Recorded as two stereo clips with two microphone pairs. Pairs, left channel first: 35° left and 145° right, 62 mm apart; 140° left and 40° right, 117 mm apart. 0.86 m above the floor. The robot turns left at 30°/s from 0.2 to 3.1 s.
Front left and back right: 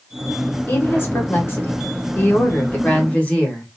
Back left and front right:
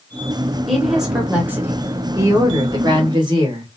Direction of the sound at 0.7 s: 50° left.